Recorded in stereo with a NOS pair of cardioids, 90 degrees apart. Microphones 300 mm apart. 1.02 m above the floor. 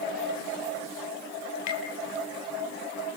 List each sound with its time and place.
1.7 s tapping: 65° left, 6 m